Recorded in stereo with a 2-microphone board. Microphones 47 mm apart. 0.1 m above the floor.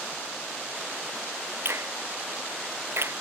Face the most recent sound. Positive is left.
turn(degrees=-60)  # may be behind; listen again after turning